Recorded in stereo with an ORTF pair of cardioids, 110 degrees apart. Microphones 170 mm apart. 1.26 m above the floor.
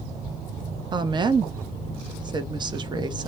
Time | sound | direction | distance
0.9 | a woman speaking | 30° right | 0.6 m